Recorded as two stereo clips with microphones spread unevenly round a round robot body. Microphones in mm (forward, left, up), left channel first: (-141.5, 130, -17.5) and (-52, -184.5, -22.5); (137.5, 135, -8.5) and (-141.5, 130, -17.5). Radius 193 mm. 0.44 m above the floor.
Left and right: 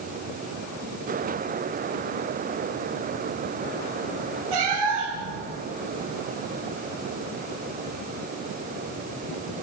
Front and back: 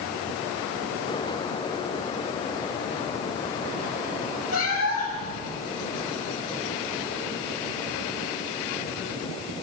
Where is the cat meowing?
55° right, 6 m.